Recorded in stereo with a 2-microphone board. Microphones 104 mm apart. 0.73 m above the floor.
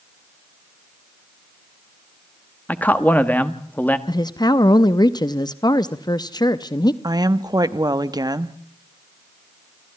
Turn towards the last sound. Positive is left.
turn(degrees=-40)  # may be behind; listen again after turning